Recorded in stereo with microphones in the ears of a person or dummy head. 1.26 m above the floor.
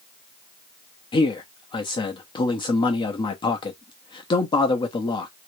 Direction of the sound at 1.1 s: 30° left (ahead or behind).